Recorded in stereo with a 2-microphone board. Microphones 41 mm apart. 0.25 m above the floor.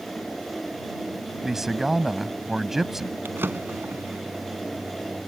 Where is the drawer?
65° right (ahead or behind).